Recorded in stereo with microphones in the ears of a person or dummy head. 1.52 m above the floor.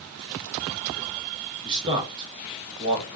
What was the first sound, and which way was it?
A man speaking, 25° right (ahead or behind).